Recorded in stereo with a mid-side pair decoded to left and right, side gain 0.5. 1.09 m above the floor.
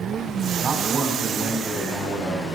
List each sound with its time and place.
0.6 s a man speaking: 40° right, 3 m